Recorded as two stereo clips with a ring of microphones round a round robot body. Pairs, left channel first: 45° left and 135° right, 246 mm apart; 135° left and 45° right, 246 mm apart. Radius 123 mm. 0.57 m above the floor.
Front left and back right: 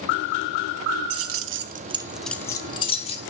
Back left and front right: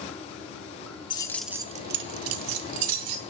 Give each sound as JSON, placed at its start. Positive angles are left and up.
{"t": 1.1, "sound": "keys jangling", "azimuth_deg": -155, "distance_m": 0.7}